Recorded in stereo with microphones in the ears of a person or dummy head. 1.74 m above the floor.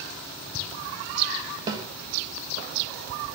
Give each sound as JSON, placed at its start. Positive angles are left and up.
{"t": 1.7, "sound": "a snare drum", "side_deg": -25, "distance_m": 1.8}